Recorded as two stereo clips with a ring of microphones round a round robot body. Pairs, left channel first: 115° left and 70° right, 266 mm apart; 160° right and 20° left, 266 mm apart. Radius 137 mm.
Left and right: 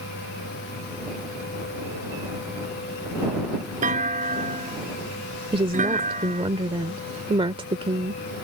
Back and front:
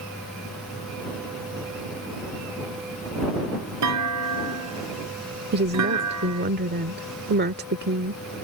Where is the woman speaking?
5° right.